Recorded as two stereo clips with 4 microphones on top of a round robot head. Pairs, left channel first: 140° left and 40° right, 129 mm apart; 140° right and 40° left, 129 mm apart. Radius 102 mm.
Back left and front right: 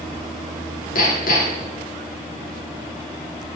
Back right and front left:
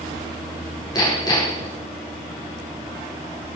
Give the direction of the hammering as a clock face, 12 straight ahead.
7 o'clock.